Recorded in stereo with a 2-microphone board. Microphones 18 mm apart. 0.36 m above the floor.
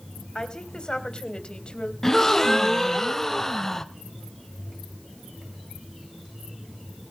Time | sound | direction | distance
0.3 | a woman speaking | 45° left (ahead or behind) | 2.5 m
2.0 | a gasp | 20° left (ahead or behind) | 1.0 m